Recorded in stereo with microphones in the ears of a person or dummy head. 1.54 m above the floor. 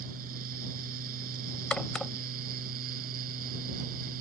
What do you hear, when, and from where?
0.0 s a fan: 55° right (ahead or behind)
1.7 s a crack: 10° left (ahead or behind)